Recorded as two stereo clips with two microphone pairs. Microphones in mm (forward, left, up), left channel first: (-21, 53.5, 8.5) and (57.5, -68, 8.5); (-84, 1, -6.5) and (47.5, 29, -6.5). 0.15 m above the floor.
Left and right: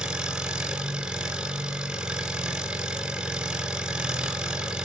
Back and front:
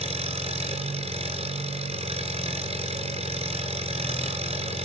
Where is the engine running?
25° left, 2.0 m.